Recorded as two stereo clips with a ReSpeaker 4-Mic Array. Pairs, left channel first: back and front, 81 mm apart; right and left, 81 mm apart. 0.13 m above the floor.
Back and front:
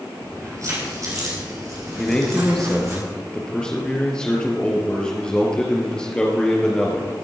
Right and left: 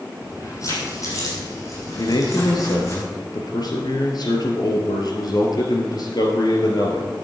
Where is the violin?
I don't hear a violin.